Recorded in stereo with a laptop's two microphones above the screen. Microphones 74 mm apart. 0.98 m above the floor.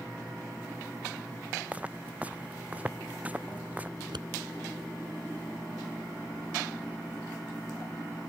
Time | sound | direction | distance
1.7 | footsteps | 20° right (ahead or behind) | ?
4.0 | scissors | 80° right | ?